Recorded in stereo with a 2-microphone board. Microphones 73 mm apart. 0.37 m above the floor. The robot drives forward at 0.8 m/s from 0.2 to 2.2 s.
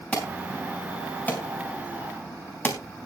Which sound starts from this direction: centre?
An alarm, at 0.1 s.